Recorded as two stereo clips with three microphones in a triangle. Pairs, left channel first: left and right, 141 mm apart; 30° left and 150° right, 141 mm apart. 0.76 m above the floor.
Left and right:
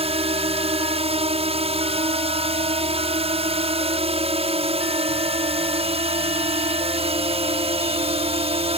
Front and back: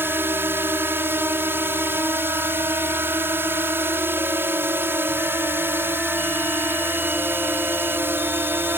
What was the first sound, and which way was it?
A drone, 80° right.